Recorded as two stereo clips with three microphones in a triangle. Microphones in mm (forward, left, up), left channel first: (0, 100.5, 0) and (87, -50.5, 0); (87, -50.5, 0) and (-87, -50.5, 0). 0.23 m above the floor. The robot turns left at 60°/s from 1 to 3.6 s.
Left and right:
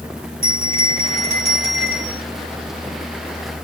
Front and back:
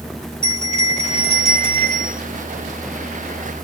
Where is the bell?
85° right, 3.5 m; by 2.2 s 160° right, 3.5 m.